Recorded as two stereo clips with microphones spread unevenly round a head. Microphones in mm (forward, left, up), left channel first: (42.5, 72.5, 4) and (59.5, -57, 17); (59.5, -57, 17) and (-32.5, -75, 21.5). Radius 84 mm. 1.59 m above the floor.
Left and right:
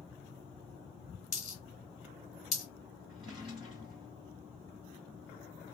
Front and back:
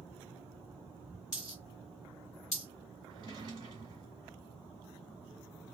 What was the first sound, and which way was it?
A dropped coin, 50° left.